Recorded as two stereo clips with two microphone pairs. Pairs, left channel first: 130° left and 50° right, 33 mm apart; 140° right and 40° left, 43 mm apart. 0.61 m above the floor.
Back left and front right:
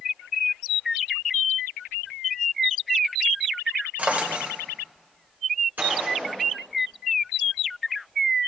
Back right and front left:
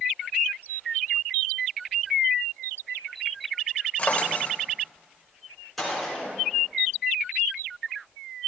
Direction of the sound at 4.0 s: 85° right.